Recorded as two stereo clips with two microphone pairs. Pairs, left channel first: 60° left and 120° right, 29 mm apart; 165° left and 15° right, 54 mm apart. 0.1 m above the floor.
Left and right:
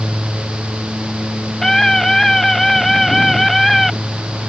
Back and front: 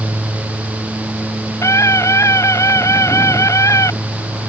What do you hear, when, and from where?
1.6 s a scream: 140° left; by 3.9 s 145° left